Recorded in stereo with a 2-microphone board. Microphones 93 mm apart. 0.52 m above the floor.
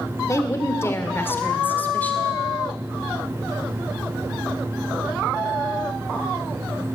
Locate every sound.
0.3 s a woman speaking: 35° left (ahead or behind), 1.7 m; by 2.4 s 15° left (ahead or behind), 2 m